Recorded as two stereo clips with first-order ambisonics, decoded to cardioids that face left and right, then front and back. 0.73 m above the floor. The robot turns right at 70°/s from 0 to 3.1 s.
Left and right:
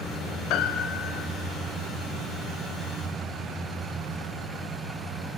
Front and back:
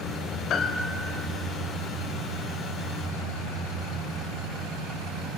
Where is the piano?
55° left, 2.0 m; by 1.3 s 105° left, 2.0 m.